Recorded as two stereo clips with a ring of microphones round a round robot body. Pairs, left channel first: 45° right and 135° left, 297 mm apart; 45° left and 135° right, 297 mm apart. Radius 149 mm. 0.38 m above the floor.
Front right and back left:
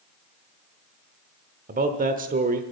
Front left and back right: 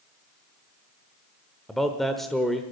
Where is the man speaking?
135° left, 0.9 m.